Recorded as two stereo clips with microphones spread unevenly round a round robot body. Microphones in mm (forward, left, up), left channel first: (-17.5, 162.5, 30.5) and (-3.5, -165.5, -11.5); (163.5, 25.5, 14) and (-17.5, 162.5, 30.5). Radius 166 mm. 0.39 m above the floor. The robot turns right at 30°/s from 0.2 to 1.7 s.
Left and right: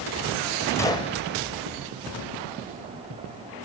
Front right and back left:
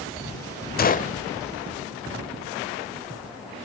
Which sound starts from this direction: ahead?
A gunshot, at 0.8 s.